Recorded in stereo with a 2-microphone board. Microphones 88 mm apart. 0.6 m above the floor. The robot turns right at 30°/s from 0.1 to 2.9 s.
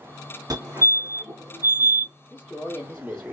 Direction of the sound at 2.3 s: 10° left (ahead or behind).